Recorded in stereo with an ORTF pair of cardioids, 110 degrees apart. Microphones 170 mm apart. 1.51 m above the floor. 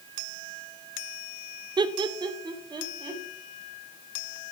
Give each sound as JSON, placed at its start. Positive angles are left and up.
{"t": 1.8, "sound": "laughter", "azimuth_deg": -25, "distance_m": 0.8}